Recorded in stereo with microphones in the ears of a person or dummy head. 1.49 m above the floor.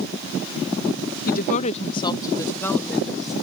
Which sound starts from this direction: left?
A woman speaking, at 1.3 s.